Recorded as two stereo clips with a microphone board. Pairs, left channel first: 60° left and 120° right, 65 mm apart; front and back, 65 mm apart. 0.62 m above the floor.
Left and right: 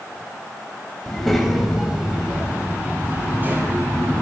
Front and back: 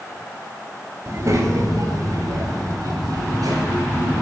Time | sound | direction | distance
1.1 | a child speaking | 145° left | 3 m